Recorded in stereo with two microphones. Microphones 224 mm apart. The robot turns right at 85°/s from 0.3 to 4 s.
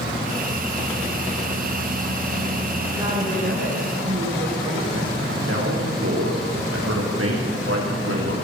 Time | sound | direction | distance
2.9 | a woman speaking | 175° right | 8.5 m
5.5 | a man speaking | 80° right | 7.5 m